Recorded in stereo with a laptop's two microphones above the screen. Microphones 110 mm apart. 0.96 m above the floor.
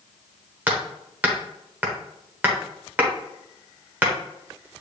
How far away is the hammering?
About 0.8 m.